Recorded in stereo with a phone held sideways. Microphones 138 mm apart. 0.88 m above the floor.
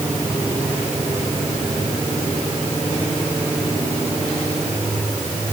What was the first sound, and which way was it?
Only background noise.